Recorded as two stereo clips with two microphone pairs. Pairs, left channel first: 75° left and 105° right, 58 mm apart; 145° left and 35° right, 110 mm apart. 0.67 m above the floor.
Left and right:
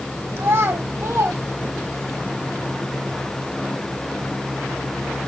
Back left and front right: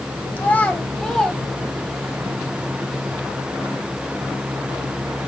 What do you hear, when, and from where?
0.4 s a child speaking: 145° right, 2.0 m; by 2.2 s 120° right, 2.5 m